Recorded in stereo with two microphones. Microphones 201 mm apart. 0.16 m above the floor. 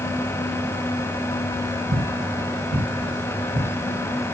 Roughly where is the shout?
No shout in this recording.